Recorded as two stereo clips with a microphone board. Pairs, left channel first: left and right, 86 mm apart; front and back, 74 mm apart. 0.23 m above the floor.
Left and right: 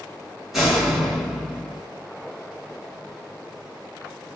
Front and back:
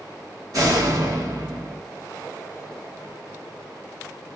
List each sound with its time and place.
0.5 s a door slam: 175° right, 1.6 m